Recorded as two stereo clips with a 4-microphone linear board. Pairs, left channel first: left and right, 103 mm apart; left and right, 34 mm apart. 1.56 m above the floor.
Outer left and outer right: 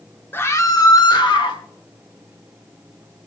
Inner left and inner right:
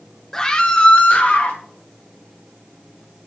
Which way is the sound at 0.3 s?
20° left (ahead or behind).